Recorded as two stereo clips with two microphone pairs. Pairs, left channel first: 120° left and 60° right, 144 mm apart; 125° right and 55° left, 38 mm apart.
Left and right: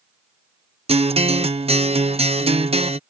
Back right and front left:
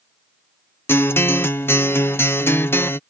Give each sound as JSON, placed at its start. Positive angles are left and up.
{"t": 0.9, "sound": "a guitar", "azimuth_deg": -110}